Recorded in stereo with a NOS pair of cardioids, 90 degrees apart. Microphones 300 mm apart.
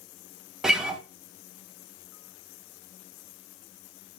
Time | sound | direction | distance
0.6 | a guitar | straight ahead | 0.5 m